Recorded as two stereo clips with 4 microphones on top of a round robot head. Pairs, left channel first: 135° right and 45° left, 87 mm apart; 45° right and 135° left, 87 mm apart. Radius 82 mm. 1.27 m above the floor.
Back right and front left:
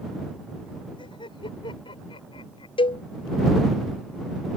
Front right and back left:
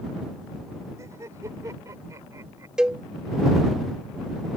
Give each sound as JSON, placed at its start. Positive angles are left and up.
{"t": 1.0, "sound": "laughter", "azimuth_deg": -165}
{"t": 2.8, "sound": "a cowbell", "azimuth_deg": -145}